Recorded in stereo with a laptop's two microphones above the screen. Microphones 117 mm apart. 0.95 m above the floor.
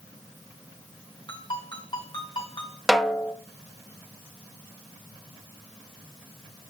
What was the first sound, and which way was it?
A ringtone, 40° left (ahead or behind).